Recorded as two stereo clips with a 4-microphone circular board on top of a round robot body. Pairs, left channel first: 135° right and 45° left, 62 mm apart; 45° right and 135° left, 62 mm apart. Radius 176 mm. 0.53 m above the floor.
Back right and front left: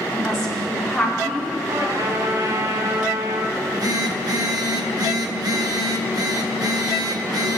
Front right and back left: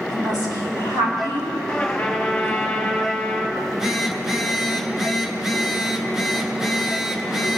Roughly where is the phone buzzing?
Ahead left.